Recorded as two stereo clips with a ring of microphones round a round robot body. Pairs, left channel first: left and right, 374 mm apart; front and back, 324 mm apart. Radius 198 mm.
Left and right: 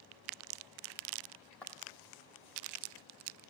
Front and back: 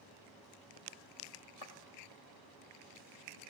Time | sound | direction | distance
1.6 | footsteps | 5° left | 1.1 m